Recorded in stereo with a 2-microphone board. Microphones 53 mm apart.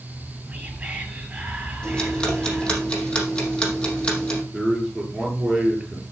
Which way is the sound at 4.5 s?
Centre (ahead or behind).